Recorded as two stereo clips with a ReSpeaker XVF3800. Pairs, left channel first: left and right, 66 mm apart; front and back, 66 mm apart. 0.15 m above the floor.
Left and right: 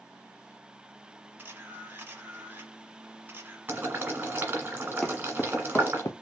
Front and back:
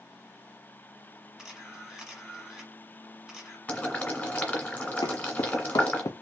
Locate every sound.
1.4 s a camera shutter: 100° right, 1.2 m
3.7 s boiling: 50° right, 1.7 m
5.0 s footsteps: 5° left, 1.2 m; by 6.1 s 45° left, 0.8 m